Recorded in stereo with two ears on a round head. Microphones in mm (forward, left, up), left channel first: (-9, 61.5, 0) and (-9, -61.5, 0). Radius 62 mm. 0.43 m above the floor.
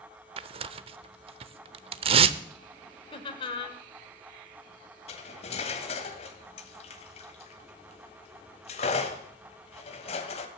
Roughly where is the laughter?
Left.